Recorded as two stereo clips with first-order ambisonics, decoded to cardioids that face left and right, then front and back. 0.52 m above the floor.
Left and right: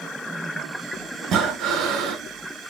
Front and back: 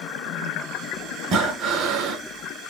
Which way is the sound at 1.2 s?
135° right.